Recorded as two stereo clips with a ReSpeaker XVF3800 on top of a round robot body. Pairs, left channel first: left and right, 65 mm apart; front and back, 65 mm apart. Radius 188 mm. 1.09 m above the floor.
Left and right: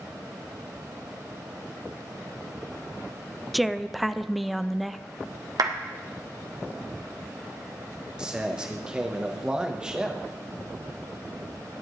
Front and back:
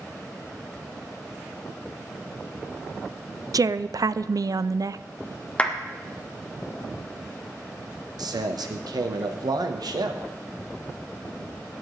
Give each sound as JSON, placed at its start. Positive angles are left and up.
{"t": 3.5, "sound": "a woman speaking", "azimuth_deg": 180, "distance_m": 0.5}
{"t": 5.6, "sound": "a clap", "azimuth_deg": -70, "distance_m": 1.4}
{"t": 8.2, "sound": "a man speaking", "azimuth_deg": -170, "distance_m": 1.2}